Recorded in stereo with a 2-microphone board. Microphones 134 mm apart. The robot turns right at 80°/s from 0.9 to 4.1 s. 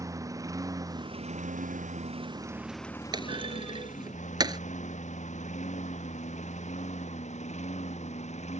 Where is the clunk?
35° right (ahead or behind).